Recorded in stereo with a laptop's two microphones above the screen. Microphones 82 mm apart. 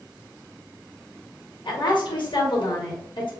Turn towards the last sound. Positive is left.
turn(degrees=75)  # may be behind; listen again after turning